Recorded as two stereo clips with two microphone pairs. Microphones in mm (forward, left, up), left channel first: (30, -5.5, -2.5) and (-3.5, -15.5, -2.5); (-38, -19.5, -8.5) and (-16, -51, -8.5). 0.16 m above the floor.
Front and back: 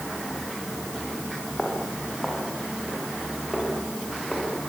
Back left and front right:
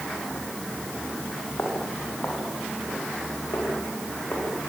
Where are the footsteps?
100° left, 8.5 m.